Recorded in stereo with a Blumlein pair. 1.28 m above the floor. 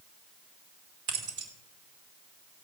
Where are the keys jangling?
45° right, 3 m.